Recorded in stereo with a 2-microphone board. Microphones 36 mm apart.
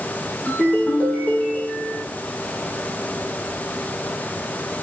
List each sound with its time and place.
0.5 s a ringtone: 50° left (ahead or behind), 8 m